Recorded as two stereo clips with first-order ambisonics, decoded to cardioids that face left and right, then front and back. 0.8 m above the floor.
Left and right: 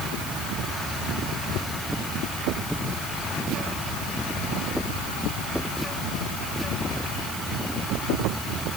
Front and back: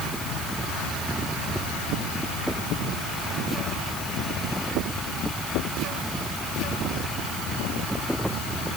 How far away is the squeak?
I don't hear a squeak.